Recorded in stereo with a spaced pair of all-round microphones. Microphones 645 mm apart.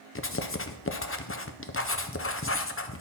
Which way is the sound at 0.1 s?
20° left (ahead or behind).